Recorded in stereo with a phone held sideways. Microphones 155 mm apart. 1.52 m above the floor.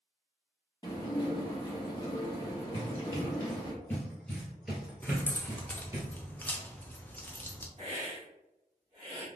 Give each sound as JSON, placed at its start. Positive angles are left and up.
{"t": 0.8, "sound": "dishes clattering", "side_deg": 25, "distance_m": 1.1}
{"t": 2.7, "sound": "running footsteps", "side_deg": 30, "distance_m": 1.8}
{"t": 5.0, "sound": "keys jangling", "side_deg": 10, "distance_m": 0.6}
{"t": 7.8, "sound": "a hiss", "side_deg": -45, "distance_m": 1.7}